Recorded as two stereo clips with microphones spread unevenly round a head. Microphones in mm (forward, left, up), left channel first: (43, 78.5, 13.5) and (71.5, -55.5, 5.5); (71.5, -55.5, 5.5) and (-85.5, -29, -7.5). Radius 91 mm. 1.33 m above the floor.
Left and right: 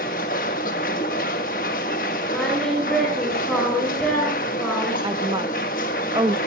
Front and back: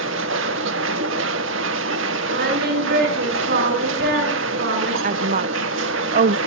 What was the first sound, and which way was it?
A machine running, 150° left.